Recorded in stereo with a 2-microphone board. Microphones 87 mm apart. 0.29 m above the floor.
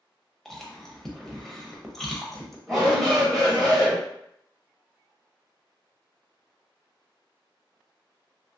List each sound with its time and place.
0.5 s chewing: 5° left (ahead or behind), 0.7 m
2.7 s a shout: centre (ahead or behind), 1.2 m